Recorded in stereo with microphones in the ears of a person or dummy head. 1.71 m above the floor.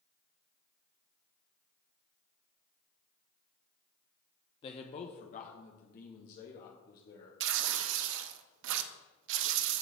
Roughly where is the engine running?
No engine running in this recording.